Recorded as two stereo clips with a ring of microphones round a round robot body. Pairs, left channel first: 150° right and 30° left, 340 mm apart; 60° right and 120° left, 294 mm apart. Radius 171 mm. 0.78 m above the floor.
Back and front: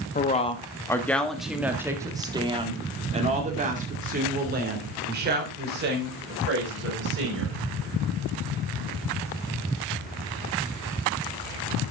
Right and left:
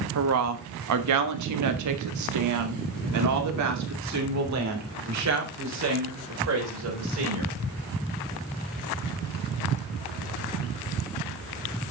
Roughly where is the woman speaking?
Behind left.